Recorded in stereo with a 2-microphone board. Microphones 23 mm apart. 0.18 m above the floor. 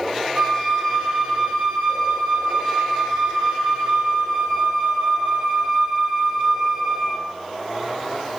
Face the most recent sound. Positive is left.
turn(degrees=-35)  # may be behind; listen again after turning